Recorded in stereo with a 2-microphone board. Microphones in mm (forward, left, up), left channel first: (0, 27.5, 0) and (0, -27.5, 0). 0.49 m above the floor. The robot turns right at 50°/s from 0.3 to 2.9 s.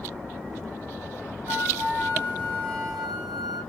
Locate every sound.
1.5 s a flute: 75° right, 1.2 m; by 3.6 s 5° right, 1.2 m